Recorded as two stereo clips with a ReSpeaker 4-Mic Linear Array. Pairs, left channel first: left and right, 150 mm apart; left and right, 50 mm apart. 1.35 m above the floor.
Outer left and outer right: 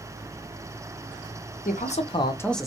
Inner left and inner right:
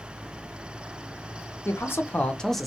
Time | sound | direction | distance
1.6 | a man speaking | 60° left (ahead or behind) | 0.6 m